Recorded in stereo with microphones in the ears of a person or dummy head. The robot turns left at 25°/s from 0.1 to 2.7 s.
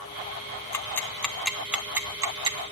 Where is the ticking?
15° left (ahead or behind), 0.7 m; by 2.6 s 25° right (ahead or behind), 0.7 m.